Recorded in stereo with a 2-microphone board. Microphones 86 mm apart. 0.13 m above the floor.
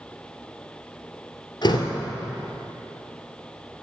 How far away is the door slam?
About 1.5 m.